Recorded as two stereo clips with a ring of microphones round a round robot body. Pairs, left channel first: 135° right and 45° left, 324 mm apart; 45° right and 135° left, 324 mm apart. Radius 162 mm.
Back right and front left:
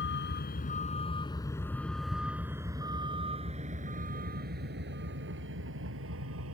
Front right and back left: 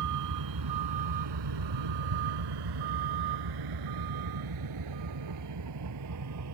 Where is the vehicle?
170° left; by 6.5 s 95° left.